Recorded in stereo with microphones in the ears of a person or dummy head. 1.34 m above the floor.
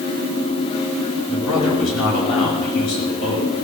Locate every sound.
1.3 s a man speaking: 80° left, 5.5 m